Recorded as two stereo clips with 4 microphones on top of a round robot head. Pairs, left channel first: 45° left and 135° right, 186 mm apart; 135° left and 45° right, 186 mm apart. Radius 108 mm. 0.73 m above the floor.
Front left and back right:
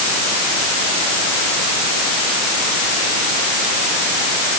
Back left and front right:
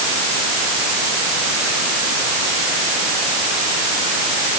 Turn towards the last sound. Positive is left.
No sound to turn to.